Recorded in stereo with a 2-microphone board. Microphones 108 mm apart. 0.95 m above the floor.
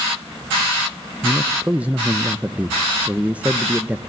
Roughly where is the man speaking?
Centre.